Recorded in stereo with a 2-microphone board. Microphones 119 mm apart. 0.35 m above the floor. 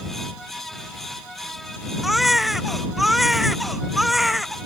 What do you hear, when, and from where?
2.0 s a baby crying: centre (ahead or behind)